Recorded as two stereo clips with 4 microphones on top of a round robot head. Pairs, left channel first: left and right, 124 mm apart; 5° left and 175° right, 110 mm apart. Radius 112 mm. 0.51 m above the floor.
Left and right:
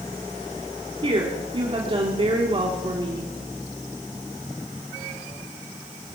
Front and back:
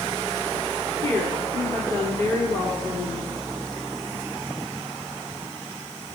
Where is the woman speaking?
60° right, 1.9 m.